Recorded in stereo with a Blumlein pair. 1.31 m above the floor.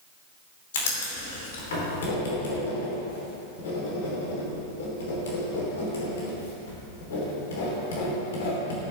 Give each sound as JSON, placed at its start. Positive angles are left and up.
{"t": 0.7, "sound": "writing", "azimuth_deg": 60, "distance_m": 3.5}